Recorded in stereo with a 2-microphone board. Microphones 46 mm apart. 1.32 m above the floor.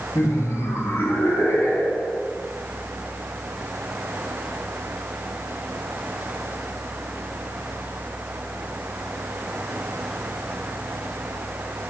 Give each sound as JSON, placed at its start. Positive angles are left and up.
{"t": 0.1, "sound": "laughter", "side_deg": 85, "distance_m": 2.0}